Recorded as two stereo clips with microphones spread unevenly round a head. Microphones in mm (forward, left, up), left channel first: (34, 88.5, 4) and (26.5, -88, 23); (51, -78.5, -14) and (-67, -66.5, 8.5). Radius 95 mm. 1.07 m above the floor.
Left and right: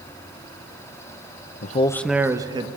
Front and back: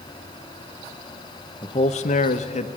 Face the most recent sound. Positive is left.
turn(degrees=-25)